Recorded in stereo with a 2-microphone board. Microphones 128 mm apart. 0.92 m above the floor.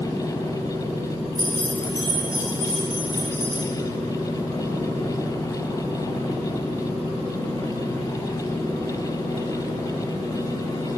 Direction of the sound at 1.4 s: 30° right (ahead or behind).